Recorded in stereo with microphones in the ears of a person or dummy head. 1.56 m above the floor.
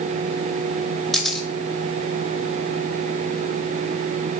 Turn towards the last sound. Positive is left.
turn(degrees=0)  # may be behind; listen again after turning